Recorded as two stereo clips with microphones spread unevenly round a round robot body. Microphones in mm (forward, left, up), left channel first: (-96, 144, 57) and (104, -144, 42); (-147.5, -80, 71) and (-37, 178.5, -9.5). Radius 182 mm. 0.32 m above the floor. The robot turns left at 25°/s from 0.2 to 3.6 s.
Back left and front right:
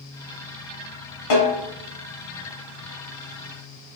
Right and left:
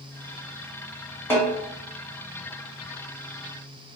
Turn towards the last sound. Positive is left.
turn(degrees=100)